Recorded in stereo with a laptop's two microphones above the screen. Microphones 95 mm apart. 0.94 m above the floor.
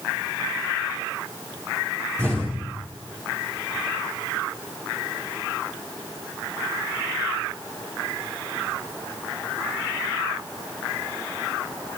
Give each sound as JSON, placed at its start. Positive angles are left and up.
{"t": 2.2, "sound": "an explosion", "side_deg": 25, "distance_m": 6.5}